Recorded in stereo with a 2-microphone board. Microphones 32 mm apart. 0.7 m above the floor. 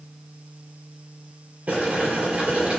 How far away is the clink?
No clink in this recording.